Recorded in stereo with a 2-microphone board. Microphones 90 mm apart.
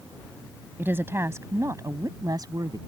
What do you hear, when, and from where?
0.8 s a woman speaking: 25° right (ahead or behind); by 2.8 s 45° right (ahead or behind)